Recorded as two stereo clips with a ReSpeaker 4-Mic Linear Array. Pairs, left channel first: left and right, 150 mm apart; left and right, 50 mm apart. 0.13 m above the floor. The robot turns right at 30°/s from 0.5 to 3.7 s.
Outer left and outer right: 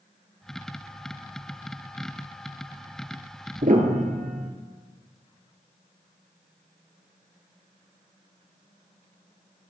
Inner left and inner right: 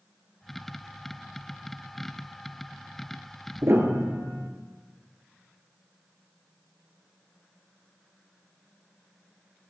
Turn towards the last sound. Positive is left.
turn(degrees=-60)  # may be behind; listen again after turning